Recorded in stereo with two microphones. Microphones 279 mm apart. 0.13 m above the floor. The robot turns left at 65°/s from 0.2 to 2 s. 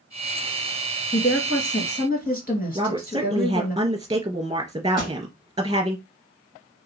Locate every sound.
1.1 s a woman speaking: 105° left, 2 m; by 3.8 s 45° left, 2 m
2.8 s a woman speaking: 15° right (ahead or behind), 2.5 m
5.0 s a pop: 30° left (ahead or behind), 2.5 m